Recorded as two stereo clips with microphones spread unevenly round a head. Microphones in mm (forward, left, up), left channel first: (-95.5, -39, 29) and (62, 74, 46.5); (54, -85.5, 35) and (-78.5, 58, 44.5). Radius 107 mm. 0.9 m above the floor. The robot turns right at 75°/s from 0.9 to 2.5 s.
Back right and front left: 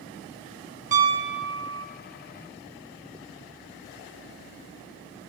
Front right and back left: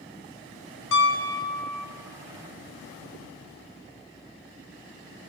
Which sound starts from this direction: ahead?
A piano, at 0.9 s.